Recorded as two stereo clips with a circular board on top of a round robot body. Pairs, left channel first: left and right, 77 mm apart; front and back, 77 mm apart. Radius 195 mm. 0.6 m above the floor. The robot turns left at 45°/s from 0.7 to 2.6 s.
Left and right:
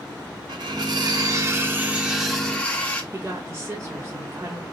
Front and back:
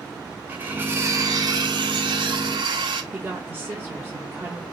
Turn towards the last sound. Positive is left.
turn(degrees=-125)